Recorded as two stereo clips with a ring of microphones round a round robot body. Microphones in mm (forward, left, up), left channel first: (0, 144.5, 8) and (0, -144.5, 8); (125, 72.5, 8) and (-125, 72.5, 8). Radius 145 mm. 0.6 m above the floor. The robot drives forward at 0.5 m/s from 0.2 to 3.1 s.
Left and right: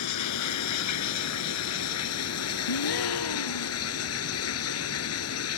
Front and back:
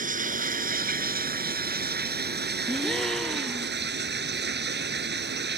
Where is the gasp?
85° left; by 3.8 s 90° left.